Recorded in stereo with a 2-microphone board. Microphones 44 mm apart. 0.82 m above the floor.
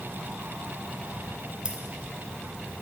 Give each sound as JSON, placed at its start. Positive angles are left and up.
{"t": 1.6, "sound": "keys jangling", "side_deg": -20, "distance_m": 1.1}